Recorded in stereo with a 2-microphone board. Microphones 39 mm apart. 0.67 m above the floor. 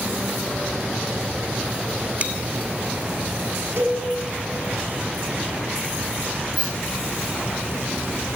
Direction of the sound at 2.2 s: 40° right (ahead or behind).